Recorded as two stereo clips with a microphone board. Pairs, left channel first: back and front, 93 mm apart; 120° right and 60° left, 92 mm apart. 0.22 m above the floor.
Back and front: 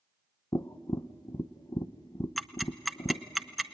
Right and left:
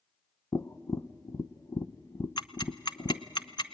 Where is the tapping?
155° right, 0.6 m.